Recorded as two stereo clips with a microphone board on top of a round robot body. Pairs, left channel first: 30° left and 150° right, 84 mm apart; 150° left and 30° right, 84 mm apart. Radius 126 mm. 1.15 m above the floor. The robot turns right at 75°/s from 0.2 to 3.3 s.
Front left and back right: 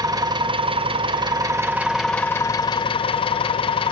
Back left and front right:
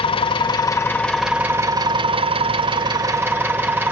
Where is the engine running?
165° left, 2.5 m; by 3.9 s 40° left, 2.5 m.